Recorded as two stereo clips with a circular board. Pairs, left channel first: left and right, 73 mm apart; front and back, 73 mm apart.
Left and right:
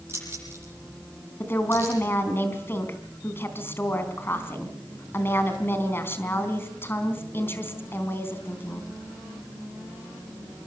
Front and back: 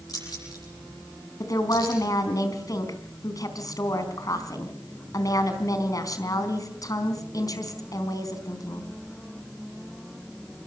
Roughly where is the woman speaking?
Ahead left.